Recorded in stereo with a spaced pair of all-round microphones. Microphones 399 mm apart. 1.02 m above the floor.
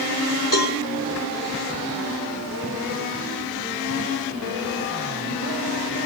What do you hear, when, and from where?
0.5 s a cowbell: 50° left (ahead or behind), 4 m